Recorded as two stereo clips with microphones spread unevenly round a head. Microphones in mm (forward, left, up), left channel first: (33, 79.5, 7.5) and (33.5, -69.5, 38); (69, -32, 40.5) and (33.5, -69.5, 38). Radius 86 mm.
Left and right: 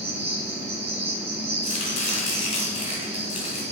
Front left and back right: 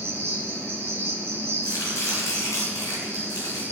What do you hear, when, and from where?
0.0 s an insect: 120° right, 1.3 m
1.6 s chopping: 35° left, 3 m